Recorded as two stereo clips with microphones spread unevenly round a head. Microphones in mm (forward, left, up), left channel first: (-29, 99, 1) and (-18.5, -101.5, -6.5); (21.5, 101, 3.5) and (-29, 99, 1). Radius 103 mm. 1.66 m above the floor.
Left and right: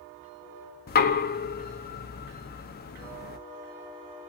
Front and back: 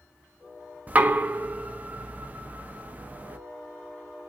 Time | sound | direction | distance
0.9 | knocking | 125° left | 0.5 m